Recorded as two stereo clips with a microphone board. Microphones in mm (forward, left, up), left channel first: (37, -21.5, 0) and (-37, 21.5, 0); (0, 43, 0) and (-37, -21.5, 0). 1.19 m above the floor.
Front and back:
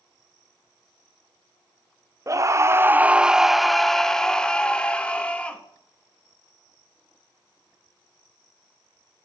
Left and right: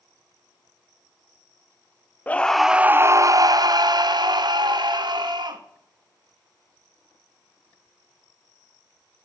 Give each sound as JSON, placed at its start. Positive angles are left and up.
{"t": 2.3, "sound": "a scream", "azimuth_deg": 120, "distance_m": 0.6}